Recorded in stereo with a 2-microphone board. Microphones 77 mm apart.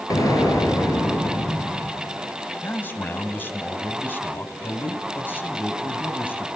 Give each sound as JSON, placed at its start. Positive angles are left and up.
{"t": 0.1, "sound": "an explosion", "side_deg": 50, "distance_m": 4.5}
{"t": 2.6, "sound": "a man speaking", "side_deg": 25, "distance_m": 2.5}